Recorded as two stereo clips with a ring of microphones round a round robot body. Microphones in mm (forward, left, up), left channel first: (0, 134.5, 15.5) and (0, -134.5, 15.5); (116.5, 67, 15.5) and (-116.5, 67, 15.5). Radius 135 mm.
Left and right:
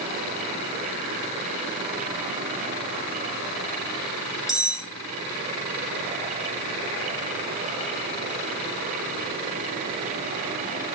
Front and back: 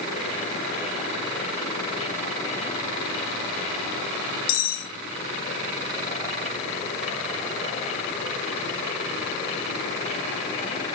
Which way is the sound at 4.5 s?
Straight ahead.